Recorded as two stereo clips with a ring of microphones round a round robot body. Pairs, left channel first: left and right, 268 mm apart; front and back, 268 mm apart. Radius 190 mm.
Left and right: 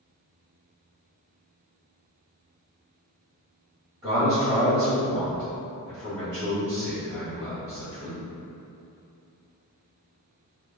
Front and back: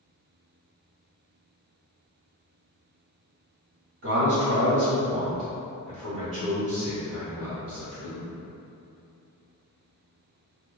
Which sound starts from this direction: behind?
A man speaking, at 4.0 s.